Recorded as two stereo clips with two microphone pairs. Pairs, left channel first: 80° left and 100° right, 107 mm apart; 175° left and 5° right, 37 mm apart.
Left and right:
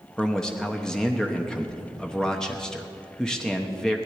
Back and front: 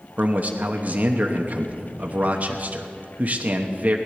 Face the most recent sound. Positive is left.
turn(degrees=-5)